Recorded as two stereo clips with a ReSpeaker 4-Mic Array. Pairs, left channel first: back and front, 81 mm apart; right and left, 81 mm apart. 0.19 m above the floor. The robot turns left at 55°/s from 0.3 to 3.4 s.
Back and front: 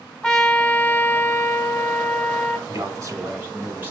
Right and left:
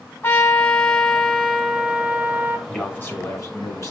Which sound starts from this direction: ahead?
A man speaking, at 2.7 s.